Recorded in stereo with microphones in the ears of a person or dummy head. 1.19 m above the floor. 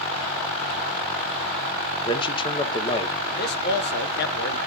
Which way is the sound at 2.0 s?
30° left (ahead or behind).